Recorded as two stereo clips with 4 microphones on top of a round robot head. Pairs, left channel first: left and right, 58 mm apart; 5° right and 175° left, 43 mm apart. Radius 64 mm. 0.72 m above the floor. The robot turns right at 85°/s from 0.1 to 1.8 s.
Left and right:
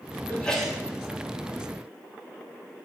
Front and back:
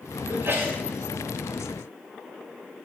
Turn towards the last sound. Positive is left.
turn(degrees=-80)